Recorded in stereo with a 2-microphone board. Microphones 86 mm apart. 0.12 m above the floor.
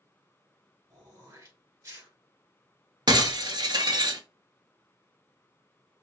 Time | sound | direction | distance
0.9 | throat clearing | 40° right (ahead or behind) | 1.5 m
3.1 | breaking glass | 55° right (ahead or behind) | 0.5 m